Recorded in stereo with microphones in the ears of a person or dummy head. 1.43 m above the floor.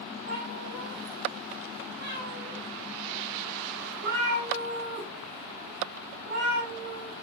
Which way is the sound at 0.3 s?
60° right (ahead or behind).